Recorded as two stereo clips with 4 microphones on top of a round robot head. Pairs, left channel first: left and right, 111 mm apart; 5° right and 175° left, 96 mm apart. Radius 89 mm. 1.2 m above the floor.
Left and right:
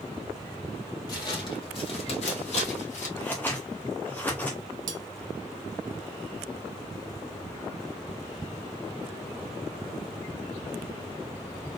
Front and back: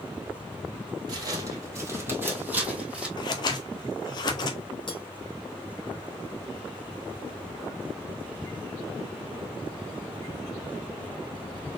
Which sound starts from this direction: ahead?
Scissors, at 3.2 s.